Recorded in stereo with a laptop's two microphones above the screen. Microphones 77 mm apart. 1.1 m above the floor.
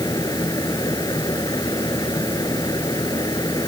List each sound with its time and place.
0.0 s a fan: 55° left (ahead or behind)